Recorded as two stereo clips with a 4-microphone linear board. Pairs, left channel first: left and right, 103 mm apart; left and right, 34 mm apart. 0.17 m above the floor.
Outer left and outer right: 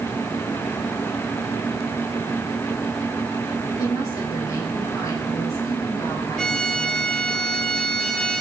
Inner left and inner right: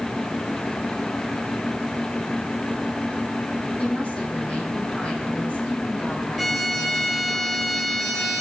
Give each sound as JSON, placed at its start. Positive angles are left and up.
{"t": 3.8, "sound": "a woman speaking", "side_deg": 30, "distance_m": 6.0}
{"t": 6.4, "sound": "a violin", "side_deg": 5, "distance_m": 1.4}